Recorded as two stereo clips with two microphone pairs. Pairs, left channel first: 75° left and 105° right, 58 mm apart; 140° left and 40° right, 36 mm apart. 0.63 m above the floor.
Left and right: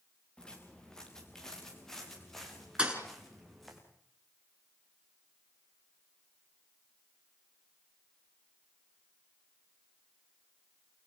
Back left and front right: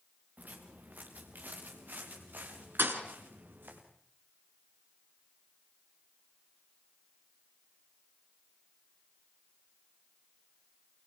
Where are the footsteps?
Straight ahead, 5.5 m; by 3.8 s 15° right, 9 m.